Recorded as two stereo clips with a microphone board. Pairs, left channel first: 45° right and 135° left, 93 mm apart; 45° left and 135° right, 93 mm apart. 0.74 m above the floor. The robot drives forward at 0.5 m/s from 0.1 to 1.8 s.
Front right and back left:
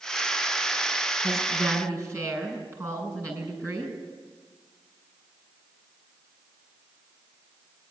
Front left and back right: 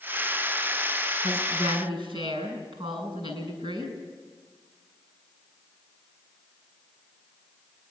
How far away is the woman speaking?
About 7 m.